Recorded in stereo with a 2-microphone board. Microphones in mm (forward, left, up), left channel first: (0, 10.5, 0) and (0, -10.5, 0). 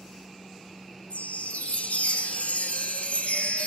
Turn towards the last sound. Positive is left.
turn(degrees=70)  # may be behind; listen again after turning